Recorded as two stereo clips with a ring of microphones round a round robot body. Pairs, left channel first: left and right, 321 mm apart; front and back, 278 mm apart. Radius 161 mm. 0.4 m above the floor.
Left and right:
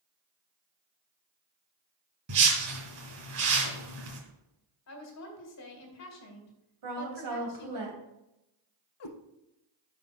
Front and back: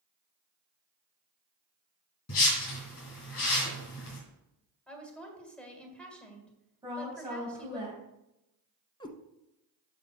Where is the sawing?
No sawing in this recording.